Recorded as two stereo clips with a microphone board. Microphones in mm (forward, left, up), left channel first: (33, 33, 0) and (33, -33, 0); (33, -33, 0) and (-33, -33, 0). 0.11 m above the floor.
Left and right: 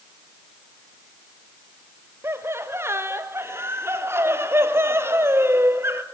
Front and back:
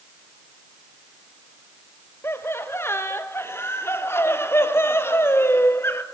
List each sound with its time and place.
2.2 s laughter: 45° right, 2.5 m